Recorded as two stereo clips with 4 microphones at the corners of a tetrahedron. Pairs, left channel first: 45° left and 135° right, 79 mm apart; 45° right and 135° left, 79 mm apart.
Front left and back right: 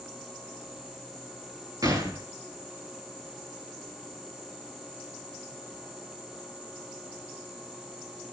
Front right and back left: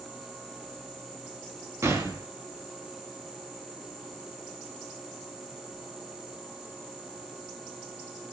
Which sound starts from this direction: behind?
A gunshot, at 1.8 s.